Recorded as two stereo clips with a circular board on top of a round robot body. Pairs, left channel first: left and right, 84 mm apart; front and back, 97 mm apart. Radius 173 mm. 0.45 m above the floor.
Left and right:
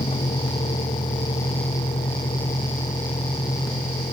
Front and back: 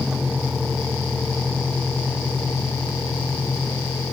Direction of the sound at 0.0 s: 95° left.